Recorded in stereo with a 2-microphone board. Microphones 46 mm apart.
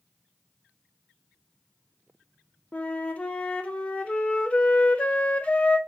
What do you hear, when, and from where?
2.7 s a flute: 25° left (ahead or behind), 0.5 m